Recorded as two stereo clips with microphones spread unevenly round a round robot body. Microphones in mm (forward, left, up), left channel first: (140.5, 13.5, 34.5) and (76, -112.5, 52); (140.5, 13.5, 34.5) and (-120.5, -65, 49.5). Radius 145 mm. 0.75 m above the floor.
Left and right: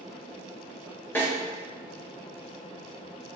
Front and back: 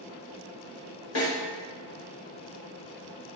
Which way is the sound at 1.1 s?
15° right.